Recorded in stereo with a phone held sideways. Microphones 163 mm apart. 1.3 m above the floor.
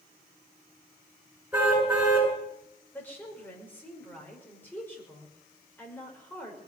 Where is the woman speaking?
10° left (ahead or behind), 5.5 m.